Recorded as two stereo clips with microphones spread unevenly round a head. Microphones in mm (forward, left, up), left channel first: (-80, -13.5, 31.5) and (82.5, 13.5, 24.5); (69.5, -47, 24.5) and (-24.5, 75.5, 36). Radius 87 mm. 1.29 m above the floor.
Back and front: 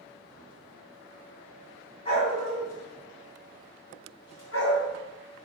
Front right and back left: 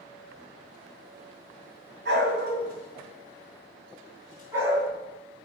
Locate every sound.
2.0 s a dog barking: 140° left, 2 m; by 4.9 s 155° right, 3.5 m